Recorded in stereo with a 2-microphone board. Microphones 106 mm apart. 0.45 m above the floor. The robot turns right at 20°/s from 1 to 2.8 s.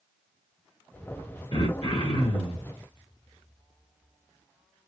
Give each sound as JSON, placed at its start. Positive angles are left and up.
{"t": 1.5, "sound": "throat clearing", "side_deg": 50, "distance_m": 2.0}